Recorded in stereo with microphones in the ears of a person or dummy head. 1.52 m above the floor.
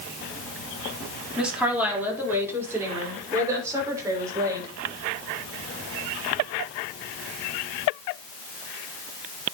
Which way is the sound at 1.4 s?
5° right (ahead or behind).